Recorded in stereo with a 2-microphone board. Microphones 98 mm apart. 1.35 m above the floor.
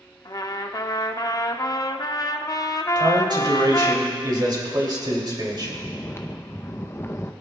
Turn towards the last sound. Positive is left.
turn(degrees=25)  # may be behind; listen again after turning